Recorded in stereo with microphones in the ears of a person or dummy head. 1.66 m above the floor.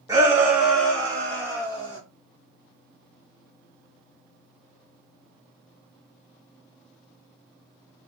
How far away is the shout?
About 1.4 m.